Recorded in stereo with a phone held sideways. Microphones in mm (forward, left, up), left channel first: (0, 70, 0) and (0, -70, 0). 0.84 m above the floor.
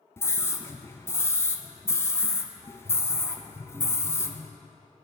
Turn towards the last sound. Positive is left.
turn(degrees=20)  # may be behind; listen again after turning